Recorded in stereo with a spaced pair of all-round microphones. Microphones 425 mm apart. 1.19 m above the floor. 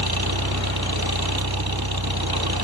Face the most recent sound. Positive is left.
turn(degrees=-60)  # may be behind; listen again after turning